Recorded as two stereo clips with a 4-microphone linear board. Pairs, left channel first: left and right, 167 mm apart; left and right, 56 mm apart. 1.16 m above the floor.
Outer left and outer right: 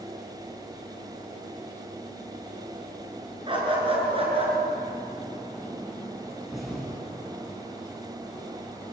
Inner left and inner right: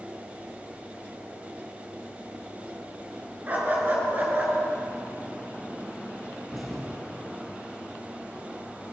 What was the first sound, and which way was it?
A dog barking, 30° right (ahead or behind).